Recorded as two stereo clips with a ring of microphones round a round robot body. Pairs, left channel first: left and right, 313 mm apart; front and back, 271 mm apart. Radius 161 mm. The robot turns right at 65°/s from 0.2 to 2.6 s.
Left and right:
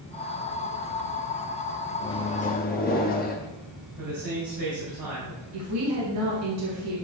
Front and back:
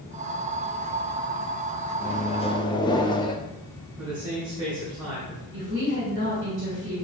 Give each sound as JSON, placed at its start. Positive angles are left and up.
{"t": 2.0, "sound": "a microwave", "azimuth_deg": 20, "distance_m": 0.9}
{"t": 4.0, "sound": "a man speaking", "azimuth_deg": -105, "distance_m": 3.0}
{"t": 5.5, "sound": "a woman speaking", "azimuth_deg": -125, "distance_m": 2.5}